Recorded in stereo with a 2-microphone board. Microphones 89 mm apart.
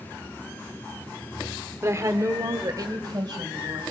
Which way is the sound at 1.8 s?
35° right (ahead or behind).